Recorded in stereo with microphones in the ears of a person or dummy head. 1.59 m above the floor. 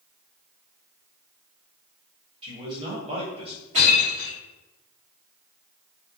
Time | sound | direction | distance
2.4 | a man speaking | 35° right (ahead or behind) | 1.2 m
3.7 | breaking glass | 40° right (ahead or behind) | 1.7 m